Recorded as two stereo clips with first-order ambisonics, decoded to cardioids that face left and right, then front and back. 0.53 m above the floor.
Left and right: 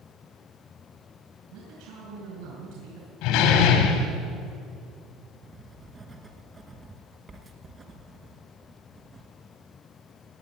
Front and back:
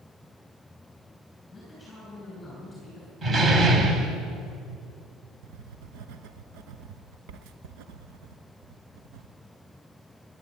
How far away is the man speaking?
About 4 m.